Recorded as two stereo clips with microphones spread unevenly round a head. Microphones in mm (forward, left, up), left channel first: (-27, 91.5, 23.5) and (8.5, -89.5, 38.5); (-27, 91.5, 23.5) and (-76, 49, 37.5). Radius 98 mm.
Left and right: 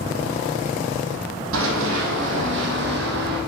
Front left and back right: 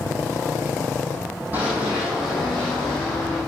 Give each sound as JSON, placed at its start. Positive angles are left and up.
{"t": 1.5, "sound": "running footsteps", "azimuth_deg": -65, "distance_m": 4.5}